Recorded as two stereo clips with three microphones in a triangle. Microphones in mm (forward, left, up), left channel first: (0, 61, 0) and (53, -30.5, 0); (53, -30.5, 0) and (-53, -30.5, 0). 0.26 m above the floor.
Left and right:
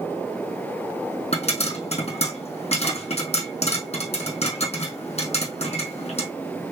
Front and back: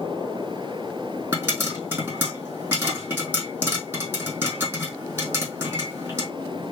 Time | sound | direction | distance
1.3 | a pop | 110° left | 2.5 m